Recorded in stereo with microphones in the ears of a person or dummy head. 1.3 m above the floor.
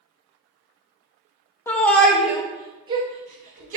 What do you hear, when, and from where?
1.7 s a shout: 15° left (ahead or behind), 1.1 m; by 3.8 s 45° right (ahead or behind), 1.4 m